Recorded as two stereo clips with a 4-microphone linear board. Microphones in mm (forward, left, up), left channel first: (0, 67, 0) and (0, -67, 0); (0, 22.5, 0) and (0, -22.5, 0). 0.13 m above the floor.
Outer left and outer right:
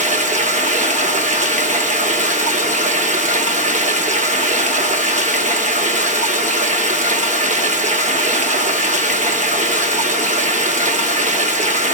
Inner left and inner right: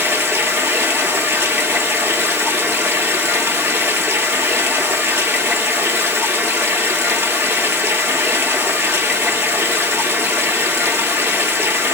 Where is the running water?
65° right (ahead or behind), 1.1 m.